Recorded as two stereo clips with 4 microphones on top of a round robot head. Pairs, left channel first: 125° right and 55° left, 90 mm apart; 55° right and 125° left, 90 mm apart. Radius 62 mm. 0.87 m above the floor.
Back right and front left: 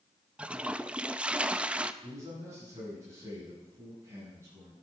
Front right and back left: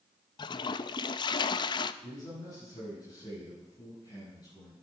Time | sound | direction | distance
0.4 | a toilet flushing | 25° right | 0.6 m
2.0 | a man speaking | 10° right | 7.5 m